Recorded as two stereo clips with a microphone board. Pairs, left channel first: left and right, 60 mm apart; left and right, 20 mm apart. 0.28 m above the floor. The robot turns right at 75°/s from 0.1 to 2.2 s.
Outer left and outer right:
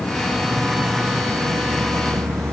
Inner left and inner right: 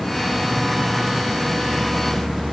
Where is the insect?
145° left, 1.0 m; by 2.5 s 60° right, 1.0 m.